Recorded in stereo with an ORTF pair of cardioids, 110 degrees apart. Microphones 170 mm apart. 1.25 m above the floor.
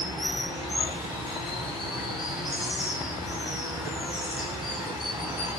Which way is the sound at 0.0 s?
5° right.